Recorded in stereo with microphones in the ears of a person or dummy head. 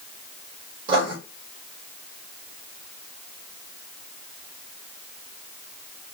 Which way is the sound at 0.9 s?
25° right (ahead or behind).